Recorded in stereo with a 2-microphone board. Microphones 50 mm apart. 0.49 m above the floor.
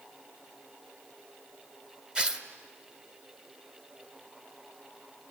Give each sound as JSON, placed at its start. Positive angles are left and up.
{"t": 2.1, "sound": "tearing paper", "side_deg": -20, "distance_m": 1.5}